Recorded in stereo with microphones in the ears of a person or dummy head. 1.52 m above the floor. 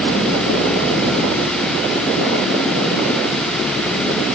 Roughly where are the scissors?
No scissors in this recording.